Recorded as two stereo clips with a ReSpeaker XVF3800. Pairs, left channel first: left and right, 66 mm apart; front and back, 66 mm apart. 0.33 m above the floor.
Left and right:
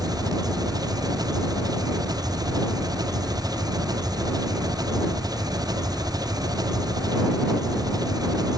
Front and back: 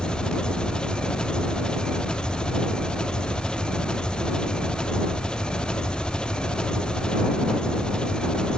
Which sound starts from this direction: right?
An engine running, at 0.0 s.